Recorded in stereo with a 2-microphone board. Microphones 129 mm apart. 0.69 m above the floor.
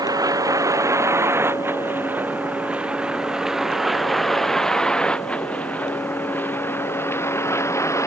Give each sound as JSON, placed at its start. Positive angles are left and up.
{"t": 0.0, "sound": "a vehicle", "side_deg": -30}